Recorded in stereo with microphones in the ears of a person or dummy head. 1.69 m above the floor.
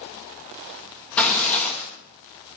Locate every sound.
1.2 s tearing paper: 10° left (ahead or behind), 1.3 m